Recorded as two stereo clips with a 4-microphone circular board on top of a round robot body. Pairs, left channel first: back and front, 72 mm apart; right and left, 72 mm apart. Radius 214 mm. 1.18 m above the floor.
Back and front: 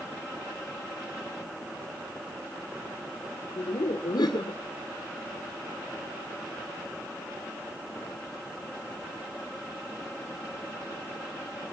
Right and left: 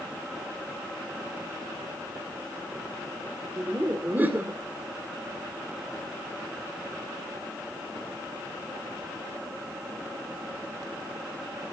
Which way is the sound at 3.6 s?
155° left.